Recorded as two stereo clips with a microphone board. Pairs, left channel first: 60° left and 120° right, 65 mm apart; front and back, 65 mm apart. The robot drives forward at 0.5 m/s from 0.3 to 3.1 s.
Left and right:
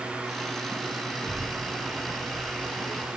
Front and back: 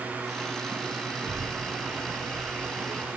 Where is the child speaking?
145° left, 3 m; by 3.1 s 150° left, 4 m.